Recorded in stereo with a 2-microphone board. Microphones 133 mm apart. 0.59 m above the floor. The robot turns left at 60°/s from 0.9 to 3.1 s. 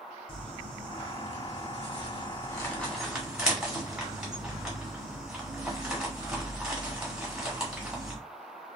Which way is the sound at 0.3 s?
45° left (ahead or behind).